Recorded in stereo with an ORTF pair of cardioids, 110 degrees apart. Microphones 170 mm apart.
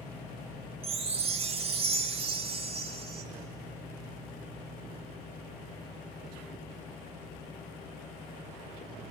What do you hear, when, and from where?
0.8 s a chime: 35° right, 1.8 m